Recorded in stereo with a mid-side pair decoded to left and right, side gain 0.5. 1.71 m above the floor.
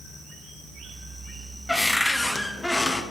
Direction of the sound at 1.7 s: 10° left.